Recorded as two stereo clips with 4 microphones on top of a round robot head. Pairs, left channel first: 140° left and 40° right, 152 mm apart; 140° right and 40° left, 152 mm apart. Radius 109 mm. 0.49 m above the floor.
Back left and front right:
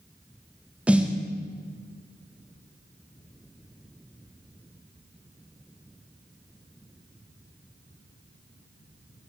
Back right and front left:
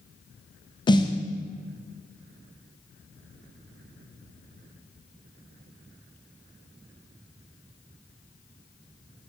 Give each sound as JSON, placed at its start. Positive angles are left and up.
{"t": 0.9, "sound": "a snare drum", "azimuth_deg": -115, "distance_m": 0.7}